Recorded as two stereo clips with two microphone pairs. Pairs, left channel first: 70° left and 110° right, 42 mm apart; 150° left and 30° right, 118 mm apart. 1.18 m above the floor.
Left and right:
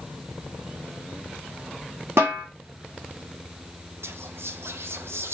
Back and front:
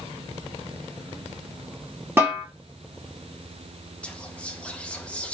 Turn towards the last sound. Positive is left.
turn(degrees=-135)